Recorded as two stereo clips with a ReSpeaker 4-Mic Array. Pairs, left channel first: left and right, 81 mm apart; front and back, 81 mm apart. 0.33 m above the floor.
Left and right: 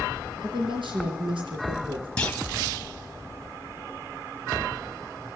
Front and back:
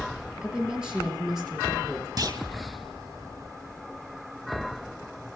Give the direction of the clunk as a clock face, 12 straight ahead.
7 o'clock.